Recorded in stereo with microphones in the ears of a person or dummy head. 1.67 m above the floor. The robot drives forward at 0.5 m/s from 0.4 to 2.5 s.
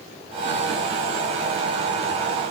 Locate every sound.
Only background noise.